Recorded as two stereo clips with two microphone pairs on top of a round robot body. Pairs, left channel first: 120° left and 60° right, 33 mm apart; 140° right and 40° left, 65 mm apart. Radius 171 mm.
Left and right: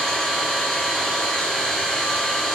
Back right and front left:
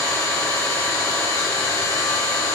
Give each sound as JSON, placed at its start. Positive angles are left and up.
{"t": 0.0, "sound": "an engine running", "azimuth_deg": -155, "distance_m": 3.0}